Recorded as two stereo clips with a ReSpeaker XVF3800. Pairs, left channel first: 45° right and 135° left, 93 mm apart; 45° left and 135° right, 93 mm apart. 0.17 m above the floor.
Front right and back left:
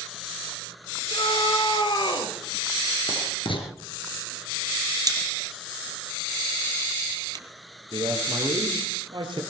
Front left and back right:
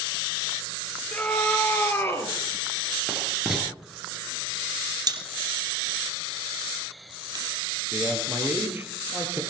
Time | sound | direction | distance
1.1 | a scream | 25° right | 5 m
3.1 | writing | 50° right | 3 m
5.1 | a pop | straight behind | 2.5 m
7.9 | a man speaking | 160° left | 4.5 m